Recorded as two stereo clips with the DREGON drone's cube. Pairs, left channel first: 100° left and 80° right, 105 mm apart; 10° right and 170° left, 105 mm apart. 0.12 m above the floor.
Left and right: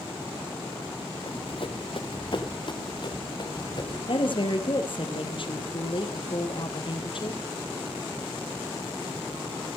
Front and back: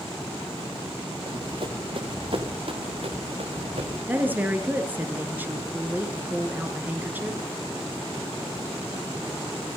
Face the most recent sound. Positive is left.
turn(degrees=100)